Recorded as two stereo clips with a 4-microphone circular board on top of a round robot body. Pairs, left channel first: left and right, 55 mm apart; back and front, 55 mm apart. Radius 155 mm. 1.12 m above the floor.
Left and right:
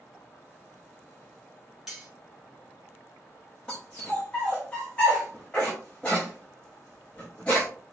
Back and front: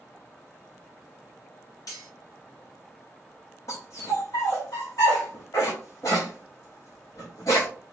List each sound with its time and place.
1.9 s cutlery clinking: 175° right, 1.6 m
3.7 s a dog barking: 160° left, 0.5 m